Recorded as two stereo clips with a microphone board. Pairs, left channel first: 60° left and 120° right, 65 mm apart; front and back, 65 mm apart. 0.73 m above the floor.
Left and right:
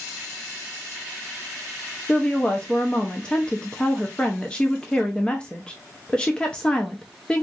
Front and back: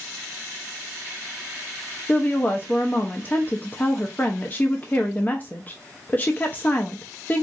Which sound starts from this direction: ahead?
A woman speaking, at 2.1 s.